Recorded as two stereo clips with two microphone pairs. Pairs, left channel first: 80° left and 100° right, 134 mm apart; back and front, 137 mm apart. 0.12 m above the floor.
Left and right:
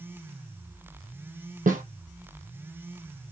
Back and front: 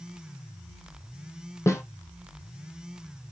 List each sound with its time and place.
1.7 s a snare drum: 110° right, 0.7 m